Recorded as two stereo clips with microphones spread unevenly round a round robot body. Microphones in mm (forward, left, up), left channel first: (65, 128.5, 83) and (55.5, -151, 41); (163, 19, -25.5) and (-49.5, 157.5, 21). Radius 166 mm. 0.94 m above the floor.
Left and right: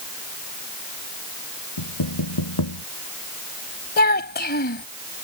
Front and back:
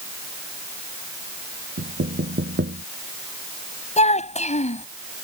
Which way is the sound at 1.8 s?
95° left.